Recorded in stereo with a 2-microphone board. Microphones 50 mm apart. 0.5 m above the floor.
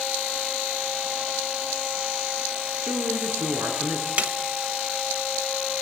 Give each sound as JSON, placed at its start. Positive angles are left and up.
{"t": 2.8, "sound": "a man speaking", "side_deg": -70, "distance_m": 8.0}
{"t": 4.2, "sound": "a snare drum", "side_deg": -30, "distance_m": 1.3}